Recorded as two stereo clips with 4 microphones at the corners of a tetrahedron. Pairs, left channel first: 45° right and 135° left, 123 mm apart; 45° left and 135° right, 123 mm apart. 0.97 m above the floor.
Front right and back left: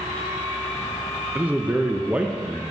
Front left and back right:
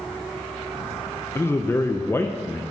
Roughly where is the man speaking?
Left.